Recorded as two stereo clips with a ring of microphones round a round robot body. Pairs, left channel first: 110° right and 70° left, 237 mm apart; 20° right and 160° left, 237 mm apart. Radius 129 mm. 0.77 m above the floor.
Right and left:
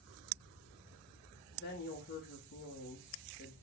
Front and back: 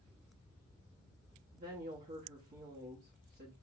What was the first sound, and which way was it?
A woman speaking, 150° right.